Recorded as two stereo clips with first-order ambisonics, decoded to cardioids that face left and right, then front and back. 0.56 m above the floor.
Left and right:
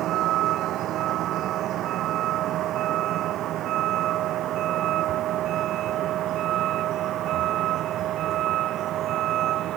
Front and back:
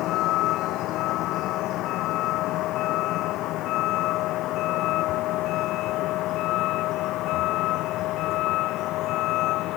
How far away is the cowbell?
I don't hear a cowbell.